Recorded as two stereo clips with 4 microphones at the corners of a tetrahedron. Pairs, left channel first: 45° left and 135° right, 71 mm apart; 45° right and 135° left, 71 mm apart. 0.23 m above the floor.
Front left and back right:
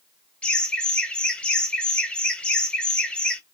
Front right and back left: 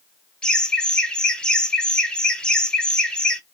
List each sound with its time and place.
0.4 s laughter: 5° left, 0.9 m